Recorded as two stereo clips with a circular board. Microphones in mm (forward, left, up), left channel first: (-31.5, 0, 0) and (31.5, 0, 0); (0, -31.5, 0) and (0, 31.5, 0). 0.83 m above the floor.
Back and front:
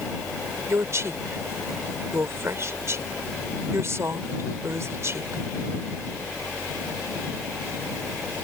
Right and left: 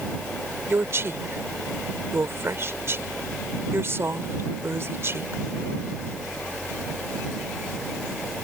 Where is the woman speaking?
40° left.